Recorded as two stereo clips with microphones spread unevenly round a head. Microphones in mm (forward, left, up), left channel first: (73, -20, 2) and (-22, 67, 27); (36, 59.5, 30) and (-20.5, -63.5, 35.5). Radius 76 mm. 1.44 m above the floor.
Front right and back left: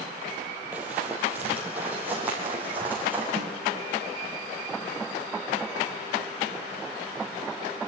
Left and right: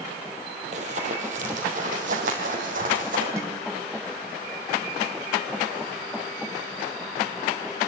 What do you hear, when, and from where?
0.7 s running footsteps: 150° right, 2.5 m
3.4 s a snare drum: 175° left, 2.5 m